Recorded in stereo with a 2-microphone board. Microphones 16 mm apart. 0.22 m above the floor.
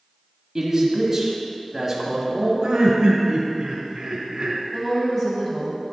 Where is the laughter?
50° right (ahead or behind), 1.4 m.